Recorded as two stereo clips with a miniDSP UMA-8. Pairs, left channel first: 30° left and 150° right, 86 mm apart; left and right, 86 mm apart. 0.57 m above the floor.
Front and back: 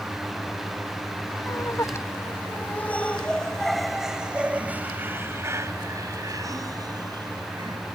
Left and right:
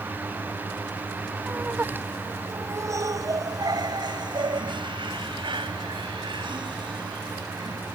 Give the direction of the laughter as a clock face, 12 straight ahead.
1 o'clock.